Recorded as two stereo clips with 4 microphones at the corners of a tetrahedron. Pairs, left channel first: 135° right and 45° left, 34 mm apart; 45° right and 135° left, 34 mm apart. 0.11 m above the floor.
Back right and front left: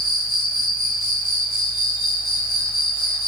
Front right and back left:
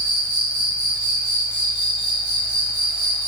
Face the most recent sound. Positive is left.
turn(degrees=150)